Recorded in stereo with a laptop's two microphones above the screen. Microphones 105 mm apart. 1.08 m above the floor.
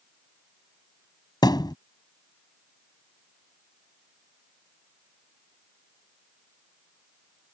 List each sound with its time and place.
1.4 s a thud: 40° left (ahead or behind)